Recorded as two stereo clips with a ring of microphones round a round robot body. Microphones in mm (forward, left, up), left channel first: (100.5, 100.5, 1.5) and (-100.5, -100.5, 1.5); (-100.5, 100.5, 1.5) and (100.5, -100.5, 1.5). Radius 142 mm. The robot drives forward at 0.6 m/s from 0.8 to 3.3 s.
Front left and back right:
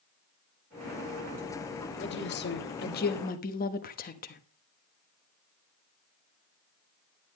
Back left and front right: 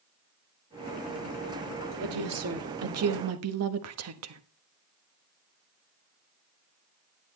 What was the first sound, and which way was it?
A woman speaking, 5° right.